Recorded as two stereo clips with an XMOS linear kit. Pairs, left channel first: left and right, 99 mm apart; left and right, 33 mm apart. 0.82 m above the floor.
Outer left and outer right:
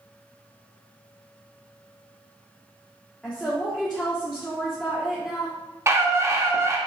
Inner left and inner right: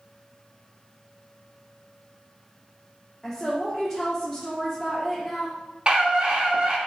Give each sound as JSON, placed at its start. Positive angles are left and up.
{"t": 3.2, "sound": "a woman speaking", "side_deg": 5, "distance_m": 1.7}
{"t": 5.9, "sound": "a scream", "side_deg": -30, "distance_m": 1.6}